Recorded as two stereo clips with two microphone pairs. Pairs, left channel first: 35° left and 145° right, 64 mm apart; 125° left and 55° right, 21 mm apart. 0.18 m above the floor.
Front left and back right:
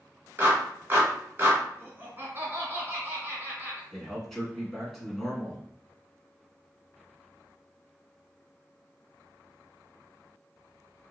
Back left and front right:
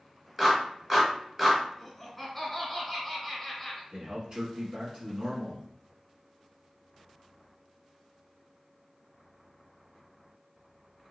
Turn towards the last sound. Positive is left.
turn(degrees=-50)